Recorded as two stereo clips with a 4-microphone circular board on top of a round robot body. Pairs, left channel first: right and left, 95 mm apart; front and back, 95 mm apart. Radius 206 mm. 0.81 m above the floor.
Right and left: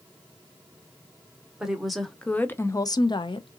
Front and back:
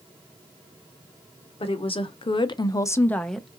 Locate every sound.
1.6 s a woman speaking: 5° left, 1.0 m; by 3.6 s 95° right, 0.8 m